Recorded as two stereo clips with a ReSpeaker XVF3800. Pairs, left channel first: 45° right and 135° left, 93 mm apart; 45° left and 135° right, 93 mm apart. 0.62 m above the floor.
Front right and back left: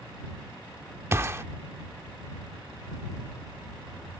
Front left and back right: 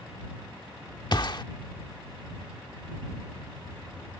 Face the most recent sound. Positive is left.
turn(degrees=75)